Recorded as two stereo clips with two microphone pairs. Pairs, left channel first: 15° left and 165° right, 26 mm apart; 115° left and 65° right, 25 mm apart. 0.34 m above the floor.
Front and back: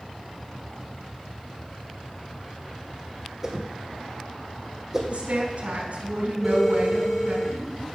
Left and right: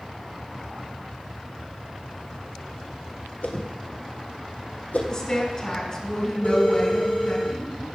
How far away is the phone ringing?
About 3 m.